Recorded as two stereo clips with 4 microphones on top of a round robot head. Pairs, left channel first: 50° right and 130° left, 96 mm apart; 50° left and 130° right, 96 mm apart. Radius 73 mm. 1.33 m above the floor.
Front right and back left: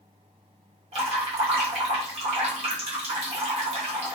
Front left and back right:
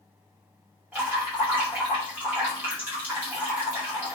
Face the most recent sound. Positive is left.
turn(degrees=155)